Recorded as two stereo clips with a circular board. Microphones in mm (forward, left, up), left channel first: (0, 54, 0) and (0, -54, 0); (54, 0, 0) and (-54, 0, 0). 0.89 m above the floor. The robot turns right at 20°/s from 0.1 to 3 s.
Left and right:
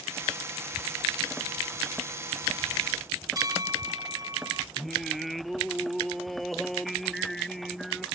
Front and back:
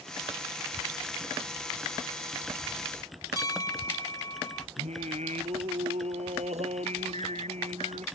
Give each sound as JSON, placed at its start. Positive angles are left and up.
{"t": 3.4, "sound": "a bell", "azimuth_deg": -45}
{"t": 4.8, "sound": "singing", "azimuth_deg": 175}